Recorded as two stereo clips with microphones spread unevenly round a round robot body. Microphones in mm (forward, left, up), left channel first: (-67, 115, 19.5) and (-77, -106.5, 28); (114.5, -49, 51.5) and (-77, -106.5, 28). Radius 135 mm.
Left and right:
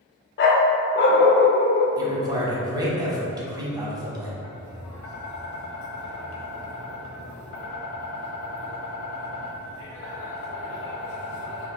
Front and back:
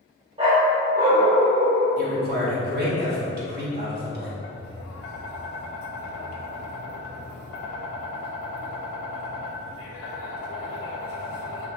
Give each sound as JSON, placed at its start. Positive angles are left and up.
{"t": 0.4, "sound": "a dog barking", "azimuth_deg": 125, "distance_m": 0.6}
{"t": 2.0, "sound": "a man speaking", "azimuth_deg": -165, "distance_m": 1.3}
{"t": 4.4, "sound": "tapping", "azimuth_deg": 45, "distance_m": 0.6}